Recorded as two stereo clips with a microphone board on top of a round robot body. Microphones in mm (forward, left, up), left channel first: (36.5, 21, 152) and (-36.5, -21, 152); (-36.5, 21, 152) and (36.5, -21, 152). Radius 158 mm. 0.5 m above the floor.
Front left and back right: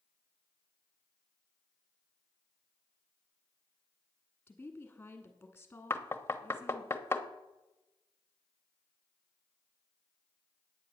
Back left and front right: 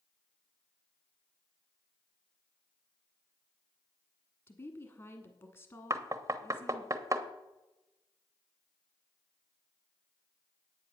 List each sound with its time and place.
4.5 s a woman speaking: 105° left, 1.5 m
5.9 s knocking: 15° right, 1.2 m